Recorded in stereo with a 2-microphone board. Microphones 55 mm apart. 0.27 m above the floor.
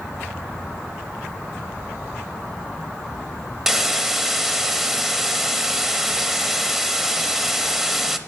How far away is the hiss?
About 0.5 m.